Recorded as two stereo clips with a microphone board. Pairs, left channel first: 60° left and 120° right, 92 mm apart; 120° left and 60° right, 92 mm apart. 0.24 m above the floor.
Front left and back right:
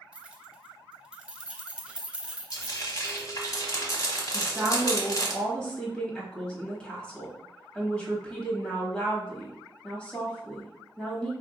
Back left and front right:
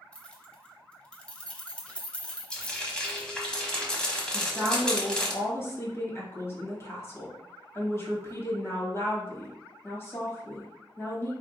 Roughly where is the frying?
Ahead left.